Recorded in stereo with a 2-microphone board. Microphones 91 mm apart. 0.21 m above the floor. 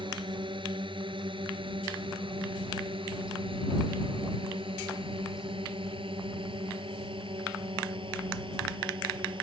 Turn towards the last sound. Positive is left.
turn(degrees=-60)  # may be behind; listen again after turning